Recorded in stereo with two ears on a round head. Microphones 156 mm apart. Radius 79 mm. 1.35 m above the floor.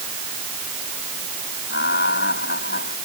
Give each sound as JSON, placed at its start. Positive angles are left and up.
{"t": 1.7, "sound": "laughter", "side_deg": 65}